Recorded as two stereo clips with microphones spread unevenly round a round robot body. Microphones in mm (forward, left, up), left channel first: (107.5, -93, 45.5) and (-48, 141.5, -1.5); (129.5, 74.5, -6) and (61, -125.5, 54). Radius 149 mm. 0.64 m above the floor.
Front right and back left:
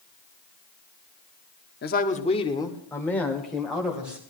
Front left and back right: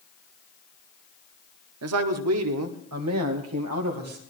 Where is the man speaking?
115° right, 1.0 m; by 4.2 s 150° right, 2.5 m.